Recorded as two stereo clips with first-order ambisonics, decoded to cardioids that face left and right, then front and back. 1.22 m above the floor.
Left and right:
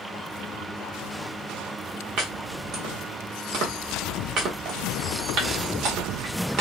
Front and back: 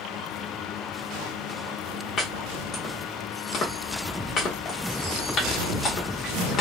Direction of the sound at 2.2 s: 60° right.